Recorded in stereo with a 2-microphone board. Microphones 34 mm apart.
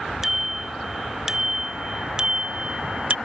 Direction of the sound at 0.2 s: 15° right (ahead or behind).